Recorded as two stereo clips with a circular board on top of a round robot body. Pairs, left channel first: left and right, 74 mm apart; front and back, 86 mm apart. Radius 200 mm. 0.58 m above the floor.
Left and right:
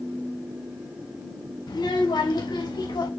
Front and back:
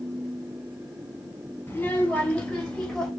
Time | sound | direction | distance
1.7 | a child speaking | 70° left | 3 m